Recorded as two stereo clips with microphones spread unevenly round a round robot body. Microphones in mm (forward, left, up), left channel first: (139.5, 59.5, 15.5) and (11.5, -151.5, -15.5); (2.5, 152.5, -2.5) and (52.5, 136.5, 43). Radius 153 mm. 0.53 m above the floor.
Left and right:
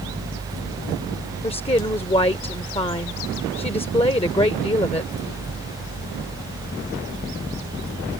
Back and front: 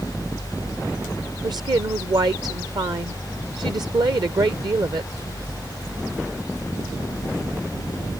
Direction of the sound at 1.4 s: 10° right.